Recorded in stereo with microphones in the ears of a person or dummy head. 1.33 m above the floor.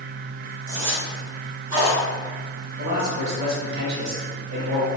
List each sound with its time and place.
0.7 s a zipper: 70° right (ahead or behind), 1.5 m
2.8 s a man speaking: 55° right (ahead or behind), 1.5 m